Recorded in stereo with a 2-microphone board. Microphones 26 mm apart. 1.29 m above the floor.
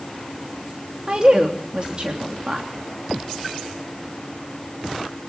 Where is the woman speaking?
40° right (ahead or behind), 3 m.